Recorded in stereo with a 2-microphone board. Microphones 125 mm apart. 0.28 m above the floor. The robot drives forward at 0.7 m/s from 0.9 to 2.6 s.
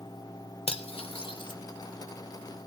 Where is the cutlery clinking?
50° left (ahead or behind), 0.7 m; by 1.6 s 35° left (ahead or behind), 0.9 m.